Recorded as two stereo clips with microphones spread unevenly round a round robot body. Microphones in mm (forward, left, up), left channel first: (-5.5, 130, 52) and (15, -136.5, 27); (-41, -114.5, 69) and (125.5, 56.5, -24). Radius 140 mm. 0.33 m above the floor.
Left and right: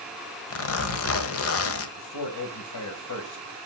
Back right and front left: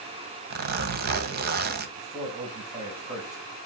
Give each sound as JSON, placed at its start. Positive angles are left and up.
{"t": 0.5, "sound": "a zipper", "azimuth_deg": 65, "distance_m": 1.3}
{"t": 2.0, "sound": "a man speaking", "azimuth_deg": 110, "distance_m": 2.5}